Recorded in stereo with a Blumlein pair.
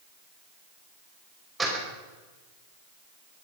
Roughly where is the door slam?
Ahead.